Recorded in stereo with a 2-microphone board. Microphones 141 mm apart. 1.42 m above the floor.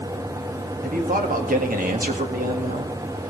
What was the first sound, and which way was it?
A man speaking, 80° right.